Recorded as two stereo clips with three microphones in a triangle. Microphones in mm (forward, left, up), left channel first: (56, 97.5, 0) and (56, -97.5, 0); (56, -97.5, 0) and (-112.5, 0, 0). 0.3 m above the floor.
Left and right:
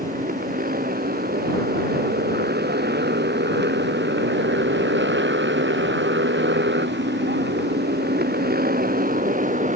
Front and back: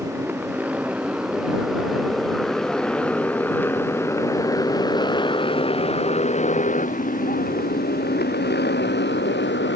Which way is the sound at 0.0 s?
130° right.